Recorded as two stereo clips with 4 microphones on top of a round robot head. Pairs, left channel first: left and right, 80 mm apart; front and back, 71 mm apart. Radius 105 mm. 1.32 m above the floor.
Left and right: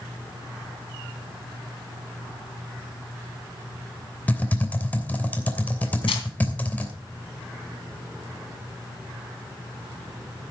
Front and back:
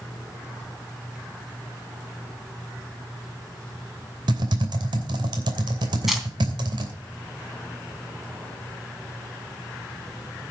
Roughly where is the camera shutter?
Left.